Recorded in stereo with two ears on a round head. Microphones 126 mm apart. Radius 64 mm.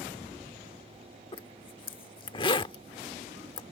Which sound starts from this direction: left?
A zipper, at 1.3 s.